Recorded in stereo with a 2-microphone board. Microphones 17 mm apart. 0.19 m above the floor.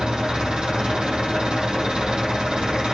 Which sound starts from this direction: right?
An engine running, at 0.0 s.